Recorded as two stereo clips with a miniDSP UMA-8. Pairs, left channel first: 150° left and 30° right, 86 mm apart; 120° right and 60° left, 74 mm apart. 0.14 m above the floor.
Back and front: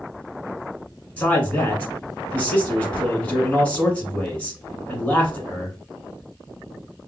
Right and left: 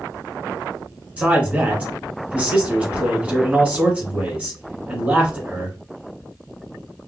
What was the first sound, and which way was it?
A man speaking, 100° left.